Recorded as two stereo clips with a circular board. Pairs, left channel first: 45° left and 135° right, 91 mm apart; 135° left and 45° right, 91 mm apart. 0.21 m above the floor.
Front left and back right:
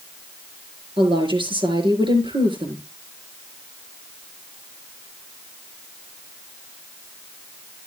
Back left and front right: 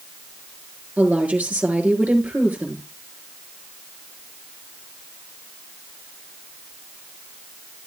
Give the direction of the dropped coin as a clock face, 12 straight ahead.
I don't hear a dropped coin.